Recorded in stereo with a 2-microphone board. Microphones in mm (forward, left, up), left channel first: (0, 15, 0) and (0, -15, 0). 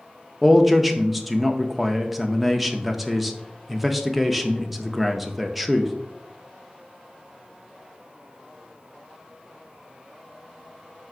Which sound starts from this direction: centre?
A man speaking, at 0.4 s.